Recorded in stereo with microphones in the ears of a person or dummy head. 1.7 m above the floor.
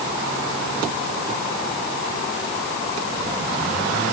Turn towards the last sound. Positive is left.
No sound to turn to.